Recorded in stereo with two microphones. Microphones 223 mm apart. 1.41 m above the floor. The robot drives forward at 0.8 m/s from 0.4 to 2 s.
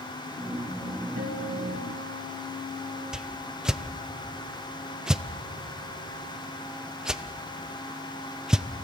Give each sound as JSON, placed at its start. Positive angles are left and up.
{"t": 1.2, "sound": "a guitar", "side_deg": -80, "distance_m": 2.0}
{"t": 3.1, "sound": "a whoosh", "side_deg": -5, "distance_m": 0.5}